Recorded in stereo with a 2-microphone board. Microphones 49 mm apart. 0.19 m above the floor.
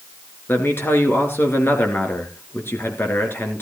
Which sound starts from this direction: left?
A man speaking, at 0.5 s.